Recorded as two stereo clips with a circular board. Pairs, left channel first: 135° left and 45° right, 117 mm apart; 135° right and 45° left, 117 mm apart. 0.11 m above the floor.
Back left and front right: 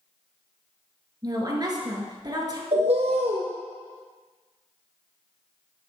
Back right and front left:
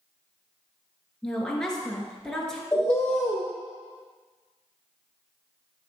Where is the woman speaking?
55° right, 1.6 m.